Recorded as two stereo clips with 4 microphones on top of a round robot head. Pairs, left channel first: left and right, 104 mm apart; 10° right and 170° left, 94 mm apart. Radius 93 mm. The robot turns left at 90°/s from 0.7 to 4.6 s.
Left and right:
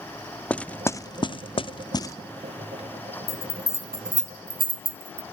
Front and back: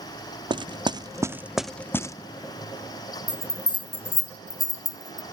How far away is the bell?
About 0.6 m.